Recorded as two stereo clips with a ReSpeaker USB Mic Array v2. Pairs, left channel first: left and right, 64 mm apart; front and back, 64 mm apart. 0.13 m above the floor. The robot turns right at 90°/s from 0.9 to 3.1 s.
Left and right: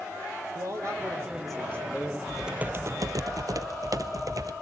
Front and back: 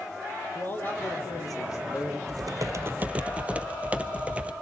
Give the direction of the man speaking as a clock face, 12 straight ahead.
2 o'clock.